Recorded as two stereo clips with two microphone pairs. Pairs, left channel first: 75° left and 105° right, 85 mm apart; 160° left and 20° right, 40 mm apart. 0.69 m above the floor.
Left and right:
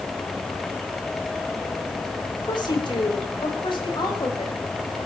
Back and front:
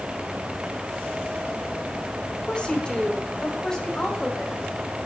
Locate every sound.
2.5 s a woman speaking: 95° left, 3.5 m; by 4.6 s 85° left, 6 m